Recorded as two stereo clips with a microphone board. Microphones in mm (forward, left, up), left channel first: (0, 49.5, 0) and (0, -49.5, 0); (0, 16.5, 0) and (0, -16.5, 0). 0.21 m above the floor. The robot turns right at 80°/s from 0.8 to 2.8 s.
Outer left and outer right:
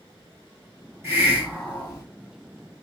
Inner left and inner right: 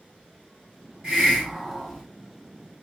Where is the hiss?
35° right, 2 m; by 2.0 s 45° left, 2 m.